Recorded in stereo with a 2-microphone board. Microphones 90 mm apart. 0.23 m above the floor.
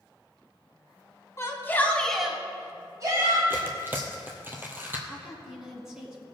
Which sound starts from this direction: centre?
A woman speaking, at 5.1 s.